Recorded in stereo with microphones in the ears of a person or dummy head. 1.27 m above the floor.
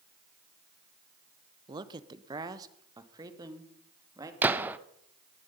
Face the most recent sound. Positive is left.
turn(degrees=-10)  # may be behind; listen again after turning